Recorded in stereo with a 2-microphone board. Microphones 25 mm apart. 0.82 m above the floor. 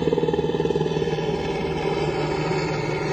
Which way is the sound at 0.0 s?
5° left (ahead or behind).